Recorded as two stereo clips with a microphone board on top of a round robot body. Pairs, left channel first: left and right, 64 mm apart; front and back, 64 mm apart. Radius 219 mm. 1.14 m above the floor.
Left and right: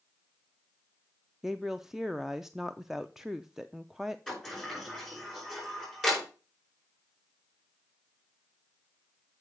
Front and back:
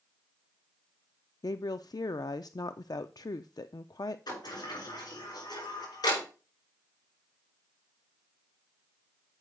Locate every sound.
1.4 s a woman speaking: 5° right, 0.5 m
4.3 s a sliding door: 5° right, 5.5 m